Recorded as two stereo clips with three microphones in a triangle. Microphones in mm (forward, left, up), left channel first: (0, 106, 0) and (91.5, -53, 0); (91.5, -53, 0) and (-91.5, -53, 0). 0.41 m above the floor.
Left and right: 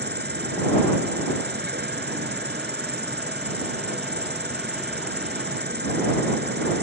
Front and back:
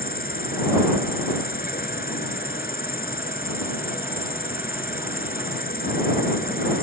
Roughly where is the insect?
Ahead right.